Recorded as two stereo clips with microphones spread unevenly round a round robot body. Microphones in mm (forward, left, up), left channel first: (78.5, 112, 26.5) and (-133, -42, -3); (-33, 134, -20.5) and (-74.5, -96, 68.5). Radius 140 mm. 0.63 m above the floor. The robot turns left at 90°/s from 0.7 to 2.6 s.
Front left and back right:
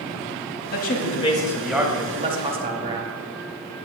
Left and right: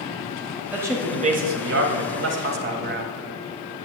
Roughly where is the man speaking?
Ahead.